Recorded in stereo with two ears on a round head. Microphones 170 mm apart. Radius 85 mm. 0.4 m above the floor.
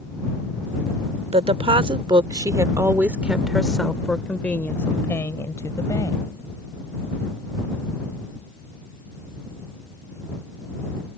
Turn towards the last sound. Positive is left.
turn(degrees=20)  # may be behind; listen again after turning